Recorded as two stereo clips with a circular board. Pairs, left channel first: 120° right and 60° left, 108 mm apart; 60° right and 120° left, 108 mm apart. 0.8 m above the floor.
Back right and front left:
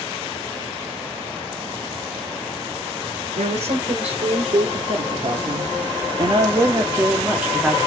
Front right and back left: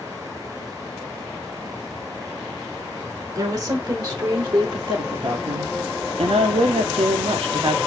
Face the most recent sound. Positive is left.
turn(degrees=145)